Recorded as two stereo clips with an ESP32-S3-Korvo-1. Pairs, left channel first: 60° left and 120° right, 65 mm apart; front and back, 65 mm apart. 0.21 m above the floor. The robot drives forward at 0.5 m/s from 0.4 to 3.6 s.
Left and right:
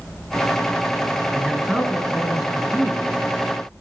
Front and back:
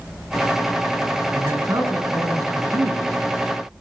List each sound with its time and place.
1.3 s a man speaking: 160° left, 3.5 m; by 3.4 s 165° left, 4.5 m